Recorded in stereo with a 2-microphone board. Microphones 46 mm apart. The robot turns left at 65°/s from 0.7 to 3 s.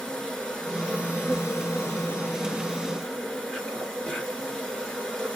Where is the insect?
165° left, 1.2 m; by 5.4 s 15° left, 1.2 m.